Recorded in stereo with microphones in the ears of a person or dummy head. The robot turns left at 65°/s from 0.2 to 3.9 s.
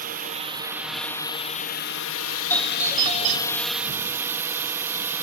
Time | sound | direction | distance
0.0 | a drone | 130° right | ?
2.5 | a doorbell | 15° left | ?